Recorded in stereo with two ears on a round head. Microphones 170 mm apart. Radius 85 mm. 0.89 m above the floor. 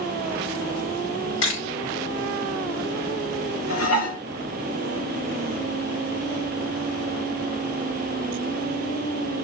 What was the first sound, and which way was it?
A camera shutter, 80° left.